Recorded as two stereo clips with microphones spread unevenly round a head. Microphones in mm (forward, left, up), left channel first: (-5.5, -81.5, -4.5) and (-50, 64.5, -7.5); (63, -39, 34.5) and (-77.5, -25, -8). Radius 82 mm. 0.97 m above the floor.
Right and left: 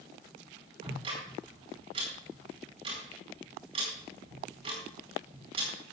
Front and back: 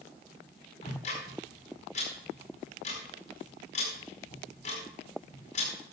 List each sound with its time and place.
0.8 s ticking: 45° left, 4.5 m